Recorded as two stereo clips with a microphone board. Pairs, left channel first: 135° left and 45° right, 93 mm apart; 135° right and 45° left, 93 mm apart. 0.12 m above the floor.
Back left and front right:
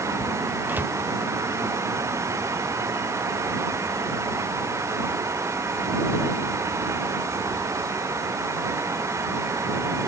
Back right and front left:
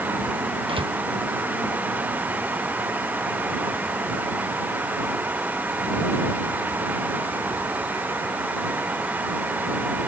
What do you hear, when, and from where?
0.7 s a door slam: 25° left